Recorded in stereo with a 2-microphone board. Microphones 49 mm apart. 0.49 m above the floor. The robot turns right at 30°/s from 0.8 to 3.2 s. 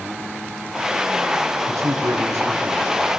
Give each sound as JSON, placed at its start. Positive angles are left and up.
{"t": 1.7, "sound": "a man speaking", "azimuth_deg": -100, "distance_m": 7.5}